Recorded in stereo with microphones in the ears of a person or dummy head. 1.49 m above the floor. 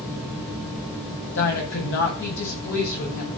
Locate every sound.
1.4 s a woman speaking: 60° left (ahead or behind), 6 m